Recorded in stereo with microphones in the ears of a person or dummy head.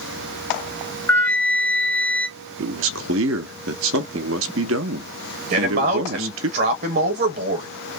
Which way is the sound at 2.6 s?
75° right (ahead or behind).